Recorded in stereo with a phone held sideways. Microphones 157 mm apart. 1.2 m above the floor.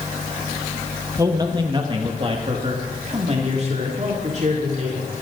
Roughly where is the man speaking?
Right.